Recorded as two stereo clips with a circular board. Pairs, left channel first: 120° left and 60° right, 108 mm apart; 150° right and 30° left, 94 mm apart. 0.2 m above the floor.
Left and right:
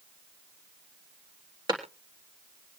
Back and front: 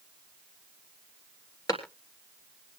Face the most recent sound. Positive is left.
turn(degrees=-105)